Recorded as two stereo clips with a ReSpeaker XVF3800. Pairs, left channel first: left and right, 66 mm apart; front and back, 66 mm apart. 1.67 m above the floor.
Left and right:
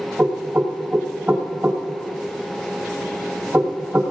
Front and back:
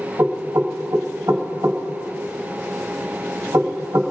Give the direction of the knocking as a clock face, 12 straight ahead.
5 o'clock.